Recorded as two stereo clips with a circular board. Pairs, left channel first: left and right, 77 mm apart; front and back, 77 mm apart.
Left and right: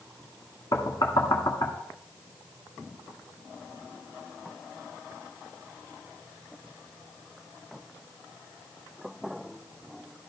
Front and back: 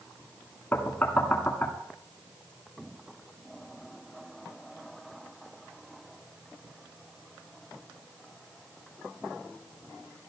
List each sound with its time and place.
0.7 s knocking: 70° left, 1.9 m